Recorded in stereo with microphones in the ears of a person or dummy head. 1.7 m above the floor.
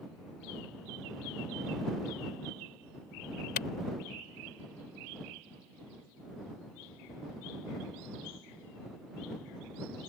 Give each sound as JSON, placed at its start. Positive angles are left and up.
{"t": 3.6, "sound": "a clap", "side_deg": 55}